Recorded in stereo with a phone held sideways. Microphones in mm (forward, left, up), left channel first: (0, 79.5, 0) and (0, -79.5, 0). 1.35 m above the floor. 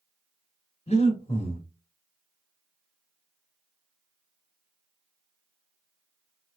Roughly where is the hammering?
No hammering in this recording.